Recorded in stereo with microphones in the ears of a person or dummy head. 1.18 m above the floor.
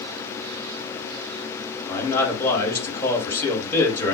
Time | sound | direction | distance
1.9 | a man speaking | 15° left (ahead or behind) | 2.5 m